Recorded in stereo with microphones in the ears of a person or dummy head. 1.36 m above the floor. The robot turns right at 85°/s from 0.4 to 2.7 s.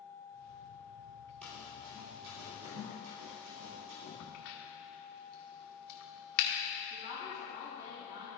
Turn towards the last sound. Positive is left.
turn(degrees=-20)  # may be behind; listen again after turning